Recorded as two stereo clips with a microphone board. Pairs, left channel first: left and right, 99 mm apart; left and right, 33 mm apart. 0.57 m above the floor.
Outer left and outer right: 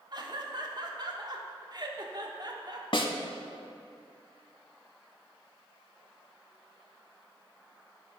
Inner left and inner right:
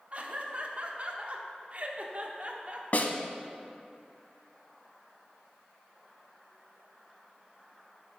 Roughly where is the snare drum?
Left.